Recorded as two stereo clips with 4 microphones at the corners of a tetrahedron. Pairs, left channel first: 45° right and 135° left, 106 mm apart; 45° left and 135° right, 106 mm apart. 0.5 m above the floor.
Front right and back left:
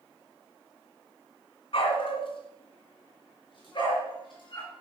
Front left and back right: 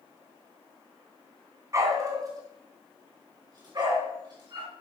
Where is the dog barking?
75° right, 2 m; by 4.7 s 90° right, 5 m.